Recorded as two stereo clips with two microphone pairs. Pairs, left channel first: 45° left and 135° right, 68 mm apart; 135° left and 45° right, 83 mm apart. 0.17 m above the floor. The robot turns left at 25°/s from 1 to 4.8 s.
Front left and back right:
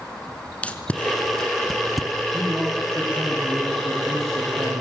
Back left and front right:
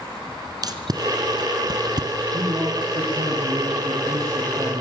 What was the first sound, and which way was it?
Tape being pulled, 20° right.